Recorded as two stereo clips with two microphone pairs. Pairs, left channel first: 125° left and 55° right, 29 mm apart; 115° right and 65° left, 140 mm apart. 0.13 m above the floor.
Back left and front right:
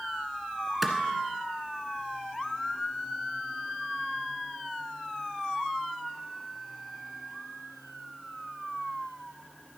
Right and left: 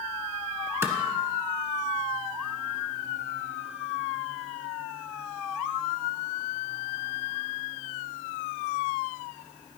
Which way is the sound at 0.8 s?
30° left.